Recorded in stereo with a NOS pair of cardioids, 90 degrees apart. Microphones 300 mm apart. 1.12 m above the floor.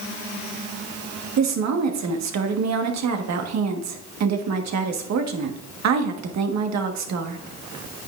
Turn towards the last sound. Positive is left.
turn(degrees=-60)